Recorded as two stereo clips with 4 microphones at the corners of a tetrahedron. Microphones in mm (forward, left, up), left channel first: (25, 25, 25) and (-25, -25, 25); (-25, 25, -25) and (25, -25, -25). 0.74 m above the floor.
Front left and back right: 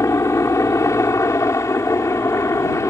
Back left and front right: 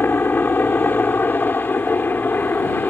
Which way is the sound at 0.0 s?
75° left.